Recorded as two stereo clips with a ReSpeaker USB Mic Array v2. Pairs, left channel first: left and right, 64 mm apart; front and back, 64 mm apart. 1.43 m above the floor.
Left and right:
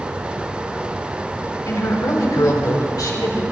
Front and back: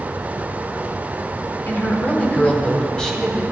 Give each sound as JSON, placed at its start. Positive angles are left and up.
{"t": 1.7, "sound": "a woman speaking", "azimuth_deg": 60, "distance_m": 4.0}